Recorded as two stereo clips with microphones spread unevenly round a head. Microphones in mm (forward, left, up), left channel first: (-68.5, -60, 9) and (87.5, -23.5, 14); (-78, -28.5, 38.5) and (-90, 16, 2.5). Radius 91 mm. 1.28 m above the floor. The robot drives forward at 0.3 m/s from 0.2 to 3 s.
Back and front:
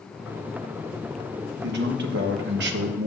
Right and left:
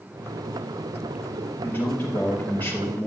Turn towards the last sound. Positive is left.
turn(degrees=5)